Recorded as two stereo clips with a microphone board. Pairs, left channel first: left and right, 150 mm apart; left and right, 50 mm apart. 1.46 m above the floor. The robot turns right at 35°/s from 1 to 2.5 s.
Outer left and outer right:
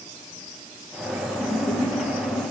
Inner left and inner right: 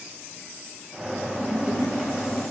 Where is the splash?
40° left, 3.5 m; by 2.4 s 75° left, 3.5 m.